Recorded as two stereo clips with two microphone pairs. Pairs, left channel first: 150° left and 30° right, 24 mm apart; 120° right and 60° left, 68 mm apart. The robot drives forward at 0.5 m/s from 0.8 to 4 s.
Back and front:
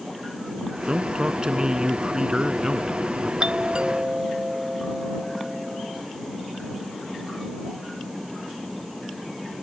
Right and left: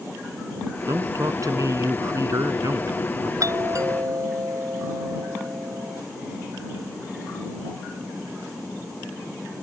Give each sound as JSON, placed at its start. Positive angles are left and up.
{"t": 0.9, "sound": "a man speaking", "azimuth_deg": 25}
{"t": 3.4, "sound": "a doorbell", "azimuth_deg": 20}